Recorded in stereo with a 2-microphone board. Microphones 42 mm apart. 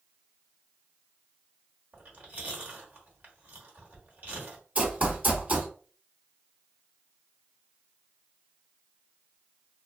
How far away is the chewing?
About 1.3 m.